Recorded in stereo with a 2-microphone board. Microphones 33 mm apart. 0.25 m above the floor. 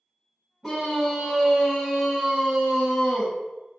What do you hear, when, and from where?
0.6 s a scream: 5° right (ahead or behind), 1.5 m; by 3.3 s 15° right (ahead or behind), 1.2 m